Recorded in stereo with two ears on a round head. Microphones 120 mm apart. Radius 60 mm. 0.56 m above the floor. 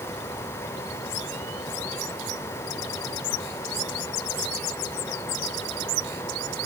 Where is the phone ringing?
No phone ringing in this recording.